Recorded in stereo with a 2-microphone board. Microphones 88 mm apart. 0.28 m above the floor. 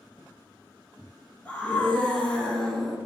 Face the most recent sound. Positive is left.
turn(degrees=5)  # may be behind; listen again after turning